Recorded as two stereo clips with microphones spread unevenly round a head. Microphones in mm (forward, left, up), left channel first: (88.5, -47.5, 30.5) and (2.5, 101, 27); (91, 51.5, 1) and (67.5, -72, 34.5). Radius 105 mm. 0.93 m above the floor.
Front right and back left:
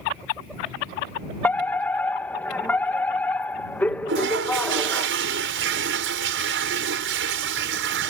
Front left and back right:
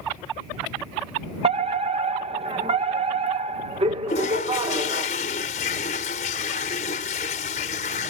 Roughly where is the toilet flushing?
Behind left.